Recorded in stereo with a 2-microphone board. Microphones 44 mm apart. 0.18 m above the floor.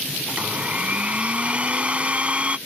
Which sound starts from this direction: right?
A blender, at 0.3 s.